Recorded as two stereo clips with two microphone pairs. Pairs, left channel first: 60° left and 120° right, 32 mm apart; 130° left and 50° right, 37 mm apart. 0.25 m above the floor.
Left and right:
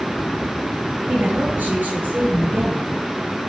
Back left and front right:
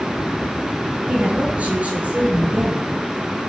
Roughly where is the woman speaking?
Right.